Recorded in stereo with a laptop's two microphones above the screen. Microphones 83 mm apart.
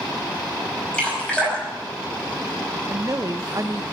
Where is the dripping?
10° left (ahead or behind), 5.5 m.